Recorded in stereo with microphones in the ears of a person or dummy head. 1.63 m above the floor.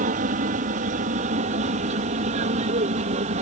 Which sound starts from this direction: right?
An aircraft, at 0.0 s.